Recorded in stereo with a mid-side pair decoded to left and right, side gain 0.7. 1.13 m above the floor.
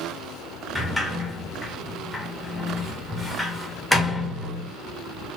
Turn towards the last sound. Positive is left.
turn(degrees=5)